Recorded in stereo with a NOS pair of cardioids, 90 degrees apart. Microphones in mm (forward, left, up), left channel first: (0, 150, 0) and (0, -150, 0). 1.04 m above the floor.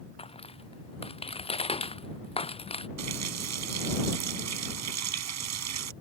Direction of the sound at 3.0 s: 65° right.